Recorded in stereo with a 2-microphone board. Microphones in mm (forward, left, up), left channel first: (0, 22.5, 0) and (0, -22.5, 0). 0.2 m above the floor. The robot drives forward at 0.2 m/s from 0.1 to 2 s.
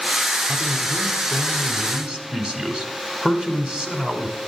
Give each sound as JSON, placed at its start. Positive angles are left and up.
{"t": 0.5, "sound": "a man speaking", "side_deg": -20, "distance_m": 1.0}